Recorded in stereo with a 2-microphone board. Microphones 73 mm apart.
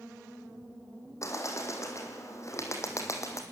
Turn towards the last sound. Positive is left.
turn(degrees=45)  # may be behind; listen again after turning